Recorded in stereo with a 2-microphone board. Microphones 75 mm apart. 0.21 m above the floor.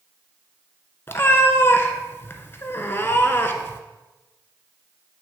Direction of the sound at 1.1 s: 30° left (ahead or behind).